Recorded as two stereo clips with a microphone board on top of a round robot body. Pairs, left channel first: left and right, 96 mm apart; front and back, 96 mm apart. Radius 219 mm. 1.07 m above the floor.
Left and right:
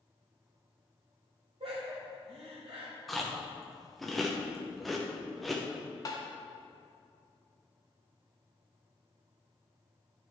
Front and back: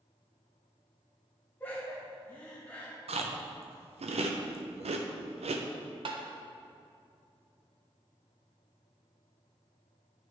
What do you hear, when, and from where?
1.6 s laughter: 70° right, 2.5 m
3.1 s chewing: straight behind, 0.5 m
6.0 s tapping: 145° left, 0.5 m